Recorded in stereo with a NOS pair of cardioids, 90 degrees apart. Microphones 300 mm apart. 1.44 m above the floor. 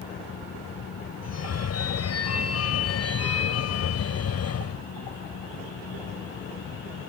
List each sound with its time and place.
0.0 s a fan: 55° left
1.2 s a phone ringing: 60° left